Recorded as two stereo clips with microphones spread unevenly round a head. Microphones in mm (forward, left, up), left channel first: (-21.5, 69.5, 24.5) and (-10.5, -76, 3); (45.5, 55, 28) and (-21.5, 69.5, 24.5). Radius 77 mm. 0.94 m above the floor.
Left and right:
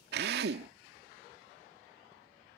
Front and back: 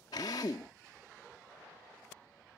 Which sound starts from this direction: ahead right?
A drill, at 0.1 s.